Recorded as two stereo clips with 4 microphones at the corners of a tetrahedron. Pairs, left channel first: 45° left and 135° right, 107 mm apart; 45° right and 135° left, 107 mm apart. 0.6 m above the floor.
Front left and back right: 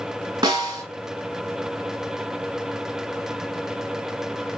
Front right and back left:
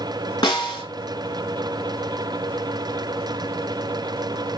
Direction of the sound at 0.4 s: 90° right.